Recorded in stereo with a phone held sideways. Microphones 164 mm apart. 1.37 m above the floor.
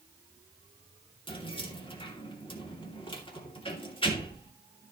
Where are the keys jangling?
30° left (ahead or behind), 2.5 m.